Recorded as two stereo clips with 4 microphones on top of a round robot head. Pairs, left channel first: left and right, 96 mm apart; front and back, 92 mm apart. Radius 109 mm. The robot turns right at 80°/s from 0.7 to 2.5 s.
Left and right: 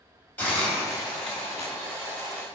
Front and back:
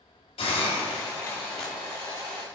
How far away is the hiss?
About 3 m.